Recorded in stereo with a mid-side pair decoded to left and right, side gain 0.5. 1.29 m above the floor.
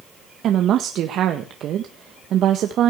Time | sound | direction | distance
0.4 | a woman speaking | 60° right | 1.6 m